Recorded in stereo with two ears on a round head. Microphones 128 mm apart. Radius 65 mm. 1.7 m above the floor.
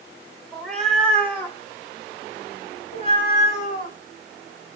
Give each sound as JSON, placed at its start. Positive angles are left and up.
{"t": 0.5, "sound": "a cat meowing", "side_deg": 0, "distance_m": 1.5}